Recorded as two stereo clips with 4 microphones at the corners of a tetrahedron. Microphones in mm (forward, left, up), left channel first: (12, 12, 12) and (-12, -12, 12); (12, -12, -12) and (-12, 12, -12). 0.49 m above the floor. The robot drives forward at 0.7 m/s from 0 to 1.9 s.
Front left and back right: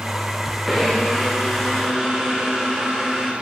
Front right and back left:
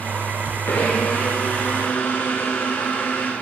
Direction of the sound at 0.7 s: 45° right.